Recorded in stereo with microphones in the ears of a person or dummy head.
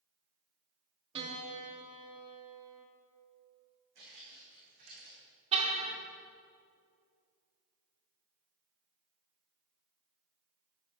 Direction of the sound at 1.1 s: 30° right (ahead or behind).